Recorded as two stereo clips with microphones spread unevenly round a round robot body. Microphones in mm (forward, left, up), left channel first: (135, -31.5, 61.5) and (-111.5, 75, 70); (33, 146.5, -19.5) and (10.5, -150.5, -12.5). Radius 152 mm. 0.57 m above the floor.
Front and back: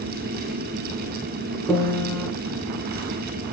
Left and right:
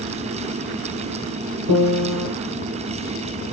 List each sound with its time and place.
1.7 s a piano: 110° right, 2.5 m